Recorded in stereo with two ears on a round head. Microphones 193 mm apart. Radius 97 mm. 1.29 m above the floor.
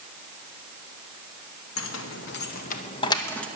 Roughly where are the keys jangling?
Left.